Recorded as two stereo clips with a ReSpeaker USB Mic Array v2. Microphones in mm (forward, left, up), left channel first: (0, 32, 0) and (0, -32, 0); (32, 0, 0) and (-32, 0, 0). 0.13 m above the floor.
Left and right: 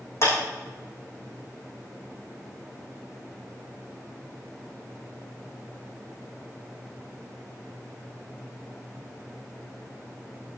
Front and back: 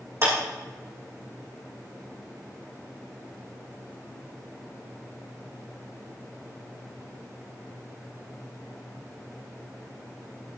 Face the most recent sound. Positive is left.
turn(degrees=135)